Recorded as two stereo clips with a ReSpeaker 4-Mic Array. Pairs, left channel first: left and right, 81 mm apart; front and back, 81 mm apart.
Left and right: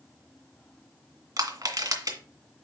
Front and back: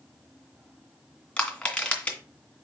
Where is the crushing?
70° right, 2 m.